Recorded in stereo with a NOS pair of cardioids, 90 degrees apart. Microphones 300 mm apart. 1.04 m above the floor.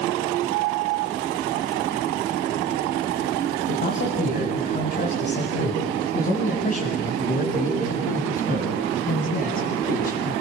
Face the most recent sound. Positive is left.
turn(degrees=30)